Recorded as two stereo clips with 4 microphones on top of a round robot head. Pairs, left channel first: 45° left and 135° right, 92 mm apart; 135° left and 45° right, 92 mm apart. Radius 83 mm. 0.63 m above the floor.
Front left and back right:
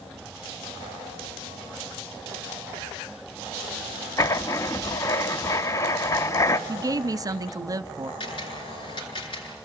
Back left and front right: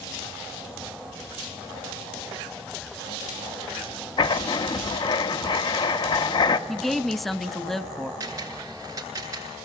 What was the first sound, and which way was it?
Writing, 100° left.